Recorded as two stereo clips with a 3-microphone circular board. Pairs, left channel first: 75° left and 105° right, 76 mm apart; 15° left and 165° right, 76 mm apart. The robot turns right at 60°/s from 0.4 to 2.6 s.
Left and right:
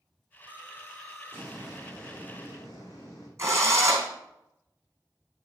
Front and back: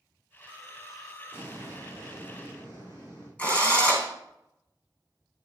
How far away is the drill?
About 3.5 m.